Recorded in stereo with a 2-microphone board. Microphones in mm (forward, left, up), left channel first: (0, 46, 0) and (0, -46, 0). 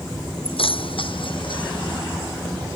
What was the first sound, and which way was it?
Keys jangling, 75° left (ahead or behind).